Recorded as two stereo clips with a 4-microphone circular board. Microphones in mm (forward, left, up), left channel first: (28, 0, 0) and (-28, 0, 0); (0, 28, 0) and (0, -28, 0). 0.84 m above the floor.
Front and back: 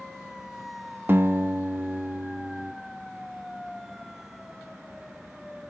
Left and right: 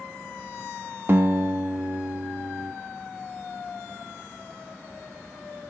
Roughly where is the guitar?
Behind right.